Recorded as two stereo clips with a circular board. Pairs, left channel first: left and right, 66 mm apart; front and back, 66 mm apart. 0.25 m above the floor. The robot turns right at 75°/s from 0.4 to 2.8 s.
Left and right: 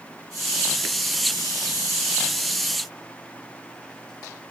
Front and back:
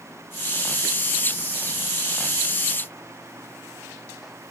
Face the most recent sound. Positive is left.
No sound to turn to.